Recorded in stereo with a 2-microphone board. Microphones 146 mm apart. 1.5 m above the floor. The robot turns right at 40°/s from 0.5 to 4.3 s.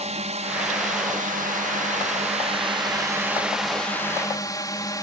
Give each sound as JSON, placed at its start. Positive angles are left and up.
{"t": 0.0, "sound": "a drone", "azimuth_deg": -125}